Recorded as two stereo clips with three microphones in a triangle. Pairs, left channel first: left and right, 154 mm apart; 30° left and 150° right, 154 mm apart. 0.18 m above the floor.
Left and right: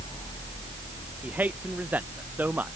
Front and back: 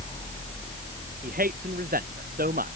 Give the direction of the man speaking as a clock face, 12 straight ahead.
6 o'clock.